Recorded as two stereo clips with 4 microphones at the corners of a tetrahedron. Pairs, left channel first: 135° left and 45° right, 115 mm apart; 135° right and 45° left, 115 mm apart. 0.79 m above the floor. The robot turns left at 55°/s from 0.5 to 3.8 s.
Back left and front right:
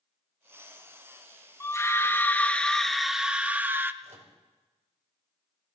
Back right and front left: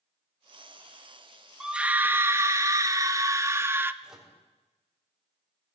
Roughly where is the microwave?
Ahead right.